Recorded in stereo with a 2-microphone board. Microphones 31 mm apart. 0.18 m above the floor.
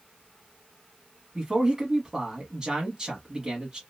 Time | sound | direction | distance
1.4 | a man speaking | 20° right (ahead or behind) | 1.1 m